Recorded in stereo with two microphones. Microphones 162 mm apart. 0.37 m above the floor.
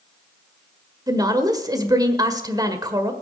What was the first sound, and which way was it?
A woman speaking, 25° right (ahead or behind).